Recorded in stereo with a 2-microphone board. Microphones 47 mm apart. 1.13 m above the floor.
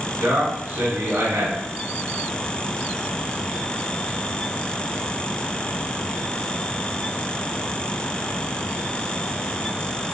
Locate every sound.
0.2 s a man speaking: 80° right, 1.7 m